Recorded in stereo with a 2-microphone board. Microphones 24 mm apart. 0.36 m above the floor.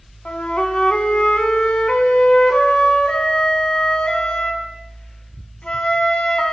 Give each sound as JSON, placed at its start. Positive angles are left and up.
{"t": 0.2, "sound": "a flute", "side_deg": 60, "distance_m": 0.6}